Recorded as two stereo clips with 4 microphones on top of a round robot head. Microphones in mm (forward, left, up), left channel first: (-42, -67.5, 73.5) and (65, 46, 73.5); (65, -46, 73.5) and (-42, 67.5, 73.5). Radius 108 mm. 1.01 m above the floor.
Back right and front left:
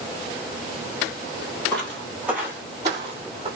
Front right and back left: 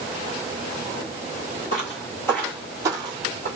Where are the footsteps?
55° right, 1.2 m; by 3.5 s 100° left, 1.4 m.